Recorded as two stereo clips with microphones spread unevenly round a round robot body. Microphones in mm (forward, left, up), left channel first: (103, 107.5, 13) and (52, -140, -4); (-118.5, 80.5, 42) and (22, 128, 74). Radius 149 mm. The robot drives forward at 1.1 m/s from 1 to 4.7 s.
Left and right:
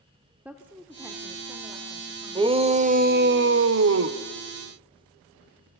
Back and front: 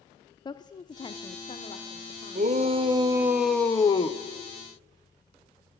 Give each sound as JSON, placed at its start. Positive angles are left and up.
{"t": 0.5, "sound": "a woman speaking", "azimuth_deg": 180, "distance_m": 1.1}
{"t": 2.4, "sound": "a shout", "azimuth_deg": -35, "distance_m": 1.8}